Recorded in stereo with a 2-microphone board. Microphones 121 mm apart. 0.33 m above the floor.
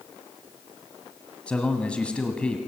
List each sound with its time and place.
1.5 s a man speaking: 10° left (ahead or behind), 2.5 m